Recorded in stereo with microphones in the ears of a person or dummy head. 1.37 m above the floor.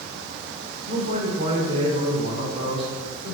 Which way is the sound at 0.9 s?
30° right (ahead or behind).